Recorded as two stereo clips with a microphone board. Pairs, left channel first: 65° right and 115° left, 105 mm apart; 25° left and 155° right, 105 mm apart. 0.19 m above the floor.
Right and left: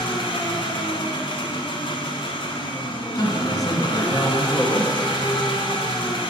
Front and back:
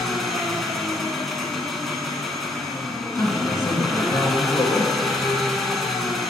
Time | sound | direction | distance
0.0 | an engine running | 65° right | 0.8 m
3.1 | a man speaking | 30° right | 1.4 m